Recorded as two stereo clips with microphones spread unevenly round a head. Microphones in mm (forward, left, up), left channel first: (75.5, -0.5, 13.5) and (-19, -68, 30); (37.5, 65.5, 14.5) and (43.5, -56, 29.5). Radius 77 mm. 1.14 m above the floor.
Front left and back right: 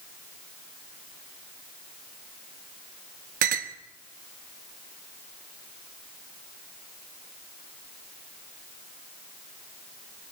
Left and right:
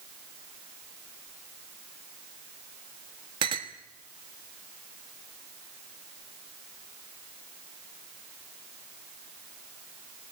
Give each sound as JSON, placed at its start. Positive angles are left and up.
{"t": 3.4, "sound": "a clink", "azimuth_deg": -150, "distance_m": 1.3}